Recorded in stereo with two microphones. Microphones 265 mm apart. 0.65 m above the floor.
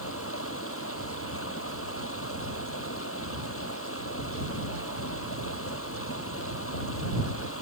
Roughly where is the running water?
Left.